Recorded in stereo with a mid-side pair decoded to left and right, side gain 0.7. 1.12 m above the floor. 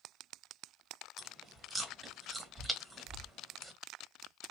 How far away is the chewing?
About 1.4 m.